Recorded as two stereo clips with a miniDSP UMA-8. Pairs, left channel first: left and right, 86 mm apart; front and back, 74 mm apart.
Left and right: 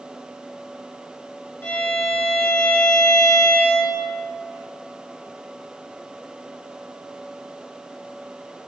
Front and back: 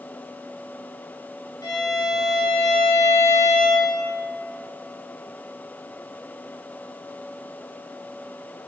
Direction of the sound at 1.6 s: 25° left.